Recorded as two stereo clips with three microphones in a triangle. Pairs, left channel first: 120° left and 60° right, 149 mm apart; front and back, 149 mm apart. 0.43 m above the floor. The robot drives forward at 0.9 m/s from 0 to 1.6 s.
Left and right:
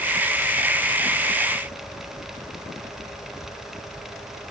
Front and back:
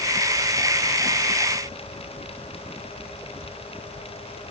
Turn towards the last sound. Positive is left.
No sound to turn to.